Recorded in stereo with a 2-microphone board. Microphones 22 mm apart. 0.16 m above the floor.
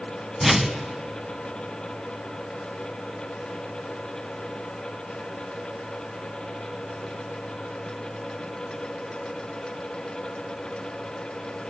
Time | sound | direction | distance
0.4 | a whoosh | 10° right (ahead or behind) | 1.2 m